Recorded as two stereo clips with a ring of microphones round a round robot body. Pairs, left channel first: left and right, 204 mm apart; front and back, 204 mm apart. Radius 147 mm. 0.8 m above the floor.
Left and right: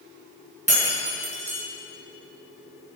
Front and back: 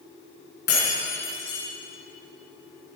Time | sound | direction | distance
0.7 | breaking glass | 35° right | 5 m